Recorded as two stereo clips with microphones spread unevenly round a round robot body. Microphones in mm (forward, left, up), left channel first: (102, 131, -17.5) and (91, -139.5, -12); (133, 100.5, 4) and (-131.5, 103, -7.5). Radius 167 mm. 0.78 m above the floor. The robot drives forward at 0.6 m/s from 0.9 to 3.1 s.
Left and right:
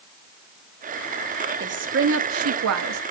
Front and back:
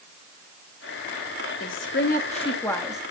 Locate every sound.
1.6 s a woman speaking: 45° right, 1.3 m; by 3.0 s 95° right, 1.0 m